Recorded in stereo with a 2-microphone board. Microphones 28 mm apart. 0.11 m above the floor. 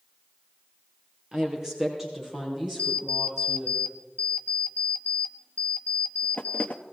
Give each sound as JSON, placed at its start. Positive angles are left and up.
{"t": 1.3, "sound": "a woman speaking", "side_deg": -20, "distance_m": 2.5}
{"t": 2.8, "sound": "an alarm clock", "side_deg": 55, "distance_m": 0.9}